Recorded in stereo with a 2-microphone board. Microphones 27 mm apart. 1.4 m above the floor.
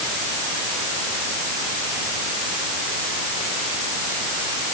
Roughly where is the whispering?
No whispering in this recording.